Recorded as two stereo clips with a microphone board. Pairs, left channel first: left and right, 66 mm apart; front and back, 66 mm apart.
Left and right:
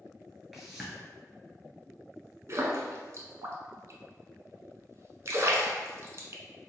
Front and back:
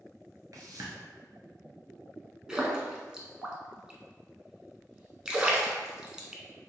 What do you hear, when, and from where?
0.5 s a whoosh: straight behind, 0.9 m
2.5 s a splash: 105° right, 0.6 m